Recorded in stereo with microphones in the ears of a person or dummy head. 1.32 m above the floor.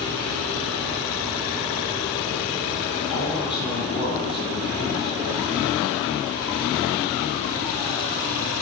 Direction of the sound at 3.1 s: 20° left (ahead or behind).